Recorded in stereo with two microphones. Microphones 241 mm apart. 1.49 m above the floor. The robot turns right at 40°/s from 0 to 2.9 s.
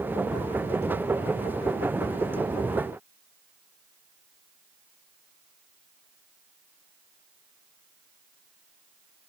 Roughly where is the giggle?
No giggle in this recording.